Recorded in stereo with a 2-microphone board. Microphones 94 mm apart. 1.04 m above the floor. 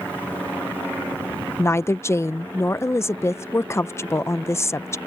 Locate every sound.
1.6 s a woman speaking: 30° left (ahead or behind)